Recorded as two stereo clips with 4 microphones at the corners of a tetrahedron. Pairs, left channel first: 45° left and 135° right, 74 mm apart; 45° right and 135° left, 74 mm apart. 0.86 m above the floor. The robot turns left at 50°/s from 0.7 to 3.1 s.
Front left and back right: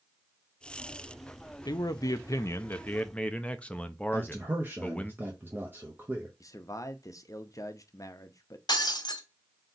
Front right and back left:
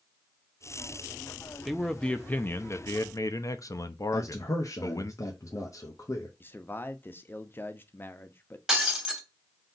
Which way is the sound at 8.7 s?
55° left.